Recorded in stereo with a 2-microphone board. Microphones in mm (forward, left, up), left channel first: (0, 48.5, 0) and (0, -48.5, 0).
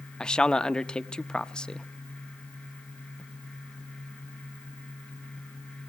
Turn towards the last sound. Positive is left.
turn(degrees=10)  # may be behind; listen again after turning